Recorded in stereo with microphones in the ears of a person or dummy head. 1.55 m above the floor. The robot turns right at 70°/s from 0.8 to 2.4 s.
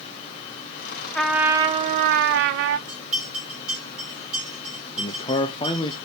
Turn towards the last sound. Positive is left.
turn(degrees=30)  # may be behind; listen again after turning